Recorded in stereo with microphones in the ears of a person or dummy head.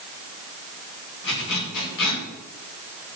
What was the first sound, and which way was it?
A zipper, 65° left (ahead or behind).